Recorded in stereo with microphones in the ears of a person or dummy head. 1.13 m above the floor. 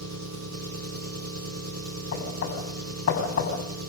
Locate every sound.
0.0 s an engine running: 80° right, 1.5 m
2.1 s knocking: 50° left (ahead or behind), 6.5 m